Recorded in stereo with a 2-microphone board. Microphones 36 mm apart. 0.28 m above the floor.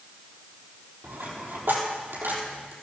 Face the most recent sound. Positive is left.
turn(degrees=-85)